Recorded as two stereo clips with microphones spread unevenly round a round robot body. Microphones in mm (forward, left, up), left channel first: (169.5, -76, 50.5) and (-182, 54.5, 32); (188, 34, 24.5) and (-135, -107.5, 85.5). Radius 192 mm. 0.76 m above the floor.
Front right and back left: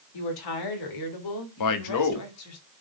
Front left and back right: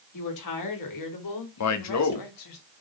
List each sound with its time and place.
0.1 s a woman speaking: straight ahead, 3 m; by 2.6 s 30° left, 2.5 m
1.6 s a man speaking: 10° left, 1.5 m